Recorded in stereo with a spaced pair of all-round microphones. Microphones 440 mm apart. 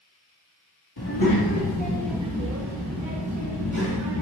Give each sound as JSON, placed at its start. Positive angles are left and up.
{"t": 1.0, "sound": "a child speaking", "side_deg": 55, "distance_m": 1.1}